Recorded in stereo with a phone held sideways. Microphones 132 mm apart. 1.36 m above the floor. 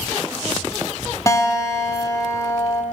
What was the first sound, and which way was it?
A guitar, 25° left (ahead or behind).